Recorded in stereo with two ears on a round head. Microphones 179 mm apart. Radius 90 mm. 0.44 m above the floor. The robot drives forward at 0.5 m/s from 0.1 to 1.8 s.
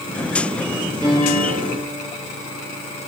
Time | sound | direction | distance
1.0 | a piano | 20° right (ahead or behind) | 6 m